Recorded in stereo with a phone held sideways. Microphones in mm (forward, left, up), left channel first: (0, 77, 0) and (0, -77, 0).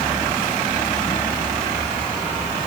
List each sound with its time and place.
Only background noise.